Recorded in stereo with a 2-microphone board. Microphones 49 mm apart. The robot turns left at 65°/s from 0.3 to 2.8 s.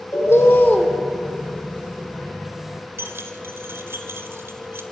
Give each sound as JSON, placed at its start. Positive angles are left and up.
{"t": 0.1, "sound": "a bird", "azimuth_deg": 65, "distance_m": 2.5}
{"t": 3.0, "sound": "keys jangling", "side_deg": -60, "distance_m": 1.7}